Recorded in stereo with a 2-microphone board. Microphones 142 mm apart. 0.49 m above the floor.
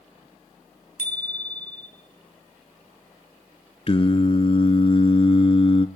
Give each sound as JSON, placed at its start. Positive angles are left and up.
{"t": 1.0, "sound": "a bicycle bell", "side_deg": 65, "distance_m": 2.5}
{"t": 3.9, "sound": "singing", "side_deg": 40, "distance_m": 1.1}